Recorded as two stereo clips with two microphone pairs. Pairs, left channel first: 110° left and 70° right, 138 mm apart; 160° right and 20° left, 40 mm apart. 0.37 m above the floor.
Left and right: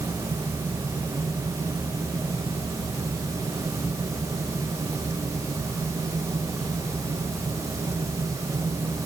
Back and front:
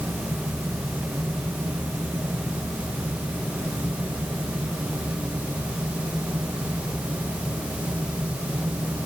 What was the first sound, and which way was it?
Only background noise.